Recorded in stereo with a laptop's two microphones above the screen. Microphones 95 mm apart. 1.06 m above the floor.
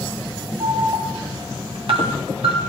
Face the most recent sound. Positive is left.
turn(degrees=-75)  # may be behind; listen again after turning